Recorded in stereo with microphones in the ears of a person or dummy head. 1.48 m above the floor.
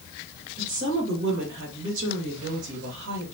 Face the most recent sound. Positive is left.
turn(degrees=-65)  # may be behind; listen again after turning